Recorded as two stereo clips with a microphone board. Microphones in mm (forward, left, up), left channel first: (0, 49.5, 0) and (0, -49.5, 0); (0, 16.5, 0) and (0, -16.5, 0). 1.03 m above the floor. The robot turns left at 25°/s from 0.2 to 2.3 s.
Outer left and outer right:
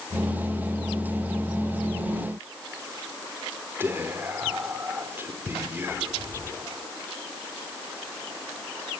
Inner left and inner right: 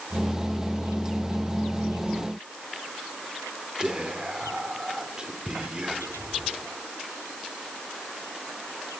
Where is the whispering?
20° right (ahead or behind), 2.5 m.